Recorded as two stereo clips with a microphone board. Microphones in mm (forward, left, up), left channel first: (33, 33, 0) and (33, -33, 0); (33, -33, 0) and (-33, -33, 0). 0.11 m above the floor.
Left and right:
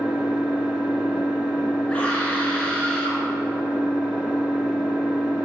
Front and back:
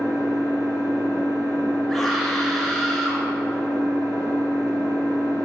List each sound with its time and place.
0.0 s an engine running: 170° right, 1.9 m
1.9 s a scream: 85° left, 1.8 m